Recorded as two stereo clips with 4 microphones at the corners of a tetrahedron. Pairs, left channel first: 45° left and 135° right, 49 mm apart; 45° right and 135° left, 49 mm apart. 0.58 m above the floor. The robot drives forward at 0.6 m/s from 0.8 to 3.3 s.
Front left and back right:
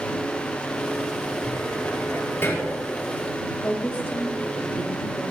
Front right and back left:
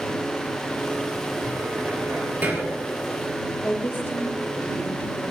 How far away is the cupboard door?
About 7 m.